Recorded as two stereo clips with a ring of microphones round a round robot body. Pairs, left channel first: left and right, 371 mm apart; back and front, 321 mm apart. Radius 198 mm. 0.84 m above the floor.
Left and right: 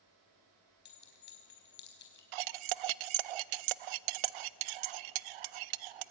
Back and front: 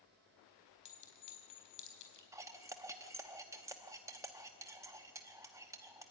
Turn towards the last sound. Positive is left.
turn(degrees=-80)